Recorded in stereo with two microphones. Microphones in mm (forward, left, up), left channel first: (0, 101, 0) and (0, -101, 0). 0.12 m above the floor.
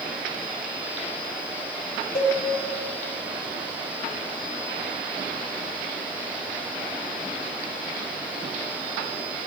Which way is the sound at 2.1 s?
50° left (ahead or behind).